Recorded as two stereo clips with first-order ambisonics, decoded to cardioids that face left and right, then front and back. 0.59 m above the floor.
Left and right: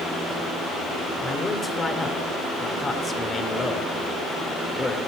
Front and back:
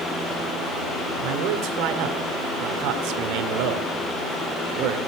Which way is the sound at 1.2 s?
165° left.